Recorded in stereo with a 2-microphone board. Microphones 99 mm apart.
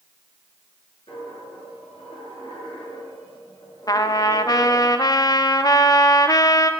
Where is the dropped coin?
80° left, 6.5 m.